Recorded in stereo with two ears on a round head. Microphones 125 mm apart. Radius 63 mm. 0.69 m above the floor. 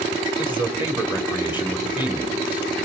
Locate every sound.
0.4 s a man speaking: 15° right (ahead or behind), 2.5 m